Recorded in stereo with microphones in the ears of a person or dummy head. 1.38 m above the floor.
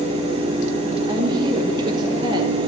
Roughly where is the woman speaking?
Right.